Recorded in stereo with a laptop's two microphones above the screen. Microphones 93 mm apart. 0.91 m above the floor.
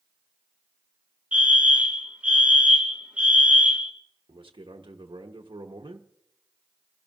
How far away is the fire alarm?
About 1.8 m.